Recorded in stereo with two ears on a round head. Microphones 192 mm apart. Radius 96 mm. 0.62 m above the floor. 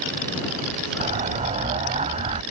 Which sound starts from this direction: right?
An explosion, at 1.0 s.